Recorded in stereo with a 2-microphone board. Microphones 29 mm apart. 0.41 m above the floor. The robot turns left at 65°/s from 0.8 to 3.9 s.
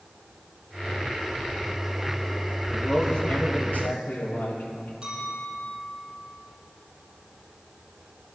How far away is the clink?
About 8 m.